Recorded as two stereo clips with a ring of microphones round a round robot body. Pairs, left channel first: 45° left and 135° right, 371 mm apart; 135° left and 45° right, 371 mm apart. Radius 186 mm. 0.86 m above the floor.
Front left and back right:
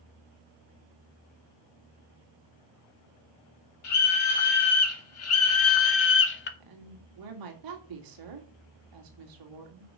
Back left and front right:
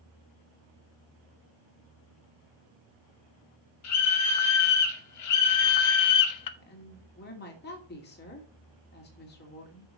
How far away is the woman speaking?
About 2.5 m.